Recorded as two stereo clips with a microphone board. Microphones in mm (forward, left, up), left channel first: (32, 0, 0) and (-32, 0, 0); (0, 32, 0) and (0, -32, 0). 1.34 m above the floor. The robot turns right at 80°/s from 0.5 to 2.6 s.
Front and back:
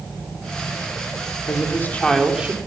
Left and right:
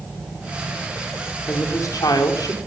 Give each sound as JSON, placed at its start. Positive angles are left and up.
{"t": 1.5, "sound": "a woman speaking", "azimuth_deg": 30, "distance_m": 4.5}